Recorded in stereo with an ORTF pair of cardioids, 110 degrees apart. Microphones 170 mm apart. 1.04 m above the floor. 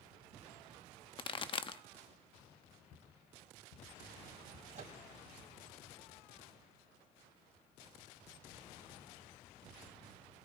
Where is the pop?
30° left, 0.8 m.